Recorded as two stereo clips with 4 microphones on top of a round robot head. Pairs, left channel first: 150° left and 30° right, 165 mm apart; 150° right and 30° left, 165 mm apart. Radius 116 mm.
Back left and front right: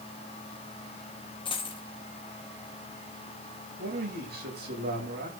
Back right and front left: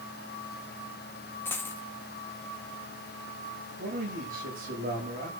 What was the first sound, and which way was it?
A dropped coin, 150° left.